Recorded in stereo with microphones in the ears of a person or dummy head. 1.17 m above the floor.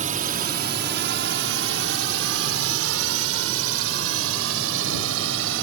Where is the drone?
35° right (ahead or behind); by 5.6 s 75° right (ahead or behind).